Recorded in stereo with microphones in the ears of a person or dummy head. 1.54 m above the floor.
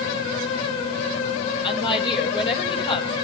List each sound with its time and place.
1.6 s a woman speaking: 30° left (ahead or behind), 8.5 m